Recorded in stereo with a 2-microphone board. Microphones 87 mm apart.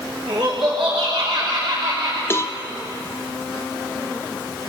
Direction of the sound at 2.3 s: 25° left (ahead or behind).